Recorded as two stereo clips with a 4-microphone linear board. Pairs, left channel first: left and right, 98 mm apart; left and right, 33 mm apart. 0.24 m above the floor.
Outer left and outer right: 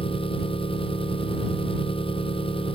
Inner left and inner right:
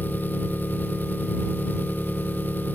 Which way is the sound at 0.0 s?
60° left (ahead or behind).